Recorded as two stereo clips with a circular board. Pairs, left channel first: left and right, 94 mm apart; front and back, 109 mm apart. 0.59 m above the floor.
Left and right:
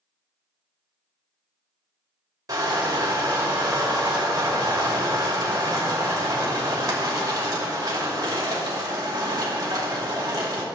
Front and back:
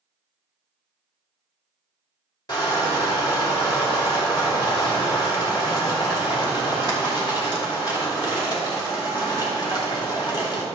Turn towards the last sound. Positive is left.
turn(degrees=-45)